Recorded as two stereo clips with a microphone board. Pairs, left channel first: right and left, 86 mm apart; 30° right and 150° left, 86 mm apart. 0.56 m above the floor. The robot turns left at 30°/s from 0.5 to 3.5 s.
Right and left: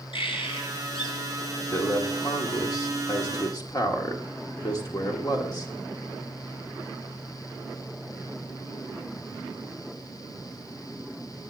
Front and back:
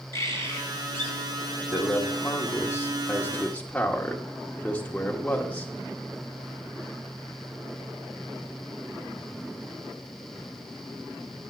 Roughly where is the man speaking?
Ahead right.